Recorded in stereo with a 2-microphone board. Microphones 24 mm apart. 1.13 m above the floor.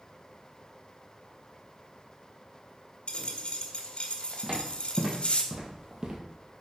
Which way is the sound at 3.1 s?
55° left (ahead or behind).